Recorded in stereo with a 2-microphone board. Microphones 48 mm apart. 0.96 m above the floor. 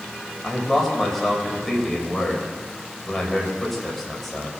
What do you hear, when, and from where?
0.4 s a man speaking: 5° left (ahead or behind), 4.5 m